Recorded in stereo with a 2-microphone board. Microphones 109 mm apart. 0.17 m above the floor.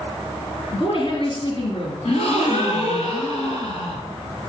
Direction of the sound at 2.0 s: 65° left (ahead or behind).